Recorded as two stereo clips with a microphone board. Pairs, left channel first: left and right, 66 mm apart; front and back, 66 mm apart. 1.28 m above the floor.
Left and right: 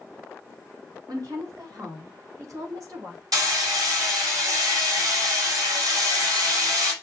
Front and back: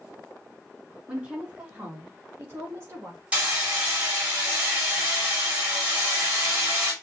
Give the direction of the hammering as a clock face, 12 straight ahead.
4 o'clock.